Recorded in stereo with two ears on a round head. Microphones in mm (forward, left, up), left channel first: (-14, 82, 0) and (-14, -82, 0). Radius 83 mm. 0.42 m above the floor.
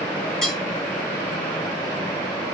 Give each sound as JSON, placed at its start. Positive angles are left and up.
{"t": 0.4, "sound": "cutlery clinking", "side_deg": 5, "distance_m": 2.0}